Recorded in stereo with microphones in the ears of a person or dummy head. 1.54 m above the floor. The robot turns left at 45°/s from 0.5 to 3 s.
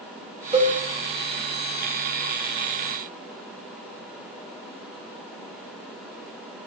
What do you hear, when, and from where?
0.5 s a cowbell: 25° right (ahead or behind), 2.5 m; by 0.8 s 15° right (ahead or behind), 2.5 m